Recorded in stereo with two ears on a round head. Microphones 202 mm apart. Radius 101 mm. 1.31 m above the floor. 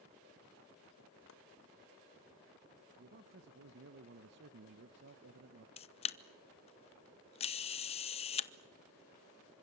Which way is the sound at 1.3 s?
60° left (ahead or behind).